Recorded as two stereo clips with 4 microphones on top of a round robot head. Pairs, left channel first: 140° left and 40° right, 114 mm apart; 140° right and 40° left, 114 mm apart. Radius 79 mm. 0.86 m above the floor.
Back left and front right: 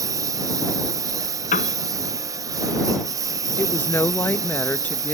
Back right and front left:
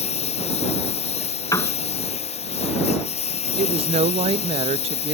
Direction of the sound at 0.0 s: 105° right.